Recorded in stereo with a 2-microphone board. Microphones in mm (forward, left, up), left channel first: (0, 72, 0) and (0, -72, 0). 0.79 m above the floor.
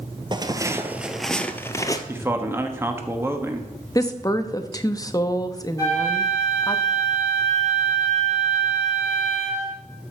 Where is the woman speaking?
25° left (ahead or behind), 0.8 m.